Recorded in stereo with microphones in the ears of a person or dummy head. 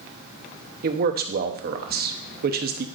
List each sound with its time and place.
0.8 s a man speaking: 50° right (ahead or behind), 0.8 m